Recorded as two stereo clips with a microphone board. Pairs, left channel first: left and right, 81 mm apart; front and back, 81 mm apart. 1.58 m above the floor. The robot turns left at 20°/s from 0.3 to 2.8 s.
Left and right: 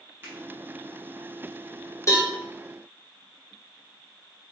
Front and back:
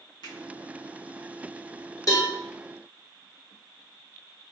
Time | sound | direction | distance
0.2 | a finger snap | 25° right | 1.7 m
2.1 | a cowbell | 40° left | 1.1 m